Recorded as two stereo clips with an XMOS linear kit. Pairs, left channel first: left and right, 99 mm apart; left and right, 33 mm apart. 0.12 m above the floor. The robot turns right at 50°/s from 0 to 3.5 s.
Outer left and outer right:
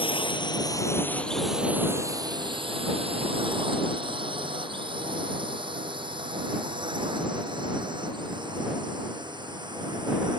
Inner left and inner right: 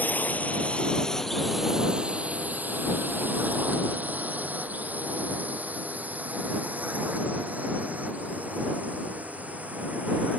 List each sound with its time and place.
0.0 s a drone: 60° left (ahead or behind); by 10.4 s 50° right (ahead or behind)